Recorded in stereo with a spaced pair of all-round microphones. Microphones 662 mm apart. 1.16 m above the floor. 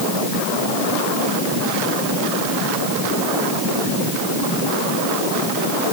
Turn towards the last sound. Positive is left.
No sound to turn to.